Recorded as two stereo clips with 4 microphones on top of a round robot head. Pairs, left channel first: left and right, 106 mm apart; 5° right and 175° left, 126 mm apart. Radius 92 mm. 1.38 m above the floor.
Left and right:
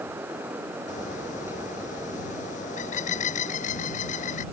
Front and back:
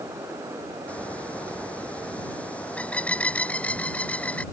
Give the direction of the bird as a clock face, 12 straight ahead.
10 o'clock.